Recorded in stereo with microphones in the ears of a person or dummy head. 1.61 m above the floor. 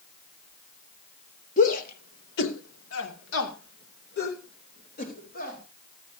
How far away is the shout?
About 2 m.